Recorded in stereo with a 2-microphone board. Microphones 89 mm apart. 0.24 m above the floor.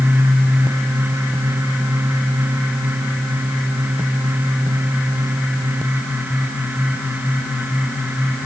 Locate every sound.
Only background noise.